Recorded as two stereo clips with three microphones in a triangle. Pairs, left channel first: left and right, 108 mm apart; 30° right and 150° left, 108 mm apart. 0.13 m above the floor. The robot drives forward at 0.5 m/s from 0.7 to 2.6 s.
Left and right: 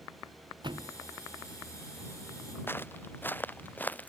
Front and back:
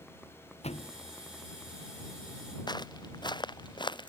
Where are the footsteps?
20° left; by 4.1 s 15° left.